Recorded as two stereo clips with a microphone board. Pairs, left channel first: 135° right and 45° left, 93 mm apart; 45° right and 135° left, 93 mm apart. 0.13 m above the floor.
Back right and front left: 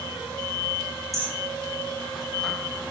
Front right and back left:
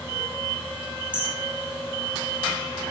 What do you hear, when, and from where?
1.1 s hammering: 100° left, 9.5 m